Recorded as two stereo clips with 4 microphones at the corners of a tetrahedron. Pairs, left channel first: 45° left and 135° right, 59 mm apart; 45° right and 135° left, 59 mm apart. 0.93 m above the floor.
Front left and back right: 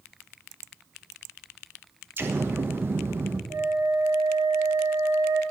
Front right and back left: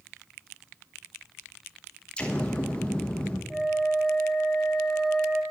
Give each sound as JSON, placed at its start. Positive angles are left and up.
{"t": 2.2, "sound": "an explosion", "azimuth_deg": -110, "distance_m": 1.2}
{"t": 3.5, "sound": "a flute", "azimuth_deg": -135, "distance_m": 1.3}